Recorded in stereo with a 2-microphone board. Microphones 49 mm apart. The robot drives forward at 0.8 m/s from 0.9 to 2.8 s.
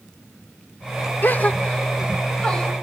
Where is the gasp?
45° left (ahead or behind), 0.6 m; by 2.7 s 15° left (ahead or behind), 1.6 m.